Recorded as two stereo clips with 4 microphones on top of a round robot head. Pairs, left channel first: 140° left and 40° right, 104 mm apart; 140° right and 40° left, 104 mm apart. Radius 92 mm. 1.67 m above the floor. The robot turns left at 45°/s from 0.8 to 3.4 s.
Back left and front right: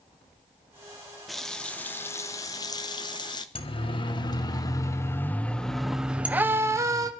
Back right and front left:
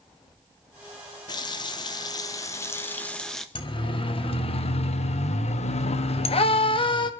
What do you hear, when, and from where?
1.3 s a running tap: 130° right, 0.7 m; by 3.5 s 135° left, 0.7 m
3.5 s a siren: 175° left, 3 m; by 7.1 s 95° right, 2.5 m